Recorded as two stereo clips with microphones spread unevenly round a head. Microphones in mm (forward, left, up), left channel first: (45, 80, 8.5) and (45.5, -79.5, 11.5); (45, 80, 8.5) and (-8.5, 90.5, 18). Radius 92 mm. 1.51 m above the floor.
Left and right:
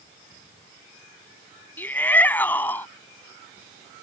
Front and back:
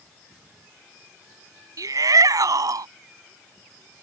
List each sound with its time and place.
1.8 s a shout: 170° left